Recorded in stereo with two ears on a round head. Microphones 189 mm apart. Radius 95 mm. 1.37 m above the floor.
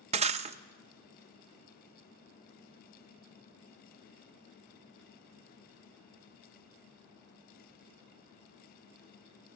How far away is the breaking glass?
About 0.6 m.